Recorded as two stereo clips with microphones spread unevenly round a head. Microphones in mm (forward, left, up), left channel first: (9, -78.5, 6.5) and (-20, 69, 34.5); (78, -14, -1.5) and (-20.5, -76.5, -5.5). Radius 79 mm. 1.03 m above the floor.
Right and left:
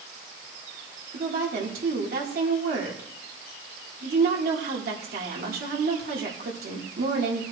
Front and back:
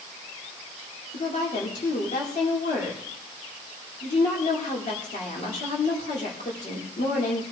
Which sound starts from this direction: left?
A woman speaking, at 1.1 s.